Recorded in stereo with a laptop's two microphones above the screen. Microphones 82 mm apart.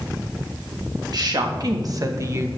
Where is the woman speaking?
55° right (ahead or behind), 1.6 m; by 2.5 s 35° right (ahead or behind), 0.7 m.